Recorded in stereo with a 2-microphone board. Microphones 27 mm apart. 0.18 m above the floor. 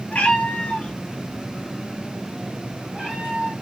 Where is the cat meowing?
70° left (ahead or behind), 1.1 m; by 3.5 s 60° right (ahead or behind), 2 m.